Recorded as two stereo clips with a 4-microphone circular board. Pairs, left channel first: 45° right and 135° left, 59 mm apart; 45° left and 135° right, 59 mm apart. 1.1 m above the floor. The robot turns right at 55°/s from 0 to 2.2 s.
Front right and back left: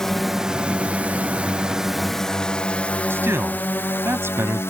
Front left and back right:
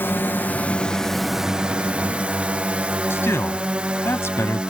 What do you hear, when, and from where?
0.0 s a drone: 30° left; by 4.7 s 70° right
3.1 s a man speaking: 90° left